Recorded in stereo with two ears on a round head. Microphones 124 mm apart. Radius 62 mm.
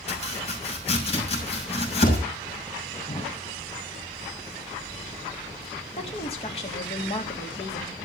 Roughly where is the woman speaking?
Left.